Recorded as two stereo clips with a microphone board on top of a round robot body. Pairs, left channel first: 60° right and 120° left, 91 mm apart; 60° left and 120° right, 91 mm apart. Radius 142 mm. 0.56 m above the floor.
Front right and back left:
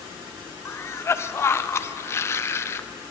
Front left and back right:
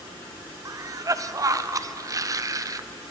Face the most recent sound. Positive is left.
turn(degrees=-100)